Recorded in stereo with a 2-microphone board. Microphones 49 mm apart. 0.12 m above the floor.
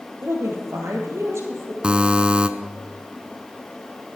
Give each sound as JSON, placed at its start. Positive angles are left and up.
{"t": 0.2, "sound": "a woman speaking", "side_deg": -65, "distance_m": 3.0}
{"t": 1.8, "sound": "a buzzer", "side_deg": -20, "distance_m": 0.7}